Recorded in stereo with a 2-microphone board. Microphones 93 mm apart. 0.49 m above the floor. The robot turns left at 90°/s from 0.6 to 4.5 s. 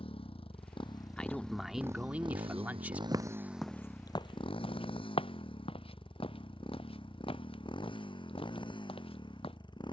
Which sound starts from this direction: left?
A motorcycle, at 0.0 s.